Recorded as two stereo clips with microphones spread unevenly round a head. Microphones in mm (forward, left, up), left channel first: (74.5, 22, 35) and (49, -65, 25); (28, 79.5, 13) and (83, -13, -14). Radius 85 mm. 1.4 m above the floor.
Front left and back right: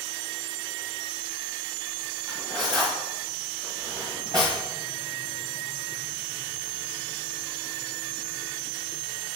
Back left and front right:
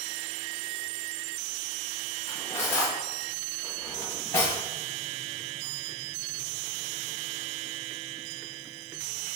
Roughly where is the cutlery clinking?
Behind.